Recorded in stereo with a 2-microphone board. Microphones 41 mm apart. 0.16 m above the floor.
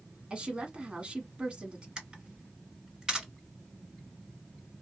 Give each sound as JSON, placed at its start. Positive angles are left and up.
{"t": 0.3, "sound": "a woman speaking", "side_deg": -25, "distance_m": 1.2}
{"t": 2.0, "sound": "a camera shutter", "side_deg": -20, "distance_m": 2.0}